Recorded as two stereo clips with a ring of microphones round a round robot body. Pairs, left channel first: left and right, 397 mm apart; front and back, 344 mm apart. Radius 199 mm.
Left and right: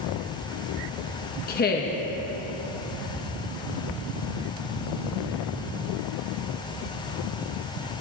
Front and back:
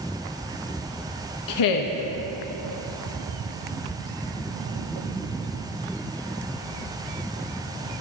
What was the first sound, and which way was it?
A woman speaking, 25° left.